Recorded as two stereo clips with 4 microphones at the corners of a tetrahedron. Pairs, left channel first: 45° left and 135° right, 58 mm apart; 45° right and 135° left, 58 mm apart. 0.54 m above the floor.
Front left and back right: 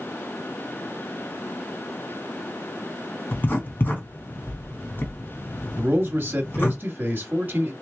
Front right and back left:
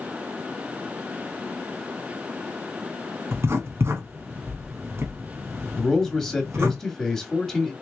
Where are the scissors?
No scissors in this recording.